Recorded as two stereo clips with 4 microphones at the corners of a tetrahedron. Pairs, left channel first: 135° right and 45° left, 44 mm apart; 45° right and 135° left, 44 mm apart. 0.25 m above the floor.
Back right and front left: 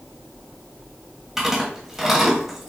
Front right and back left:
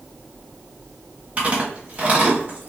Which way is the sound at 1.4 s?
125° left.